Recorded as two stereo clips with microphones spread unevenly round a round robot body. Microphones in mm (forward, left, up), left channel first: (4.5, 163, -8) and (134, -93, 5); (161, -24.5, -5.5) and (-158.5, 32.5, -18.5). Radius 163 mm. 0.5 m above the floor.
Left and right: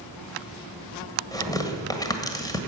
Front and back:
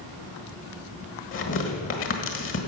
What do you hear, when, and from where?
1.3 s tearing paper: 40° left, 1.6 m